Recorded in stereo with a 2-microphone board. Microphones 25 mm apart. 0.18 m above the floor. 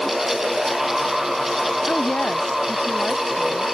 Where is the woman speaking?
65° left (ahead or behind).